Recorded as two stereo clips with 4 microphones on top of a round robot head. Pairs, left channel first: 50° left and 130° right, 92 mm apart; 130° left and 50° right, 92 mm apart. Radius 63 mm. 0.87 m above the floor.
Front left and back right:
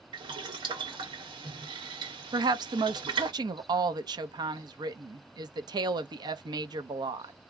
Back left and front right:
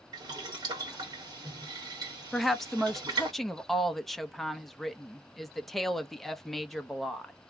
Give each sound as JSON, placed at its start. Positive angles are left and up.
{"t": 0.1, "sound": "boiling", "azimuth_deg": -95, "distance_m": 2.5}
{"t": 2.3, "sound": "a woman speaking", "azimuth_deg": -140, "distance_m": 0.8}